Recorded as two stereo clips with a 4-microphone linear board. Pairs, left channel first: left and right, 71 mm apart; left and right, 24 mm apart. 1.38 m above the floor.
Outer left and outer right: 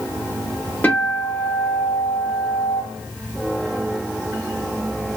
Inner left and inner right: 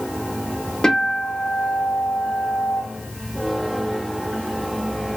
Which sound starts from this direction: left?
A guitar, at 0.8 s.